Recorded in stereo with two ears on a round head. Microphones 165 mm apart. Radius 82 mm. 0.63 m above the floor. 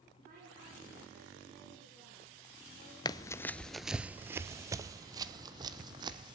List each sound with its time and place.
0.2 s a woman speaking: 45° right (ahead or behind), 9 m
3.0 s running footsteps: 25° left (ahead or behind), 0.6 m; by 6.3 s 25° right (ahead or behind), 2.0 m